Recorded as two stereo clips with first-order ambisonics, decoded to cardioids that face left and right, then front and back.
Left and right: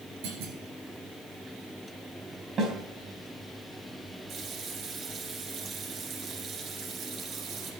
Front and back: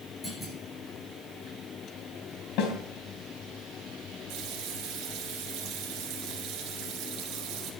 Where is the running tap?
145° right, 4 m.